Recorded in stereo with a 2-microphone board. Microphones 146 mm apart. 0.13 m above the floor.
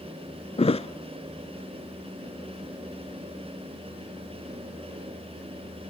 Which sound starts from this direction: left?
A thud, at 0.6 s.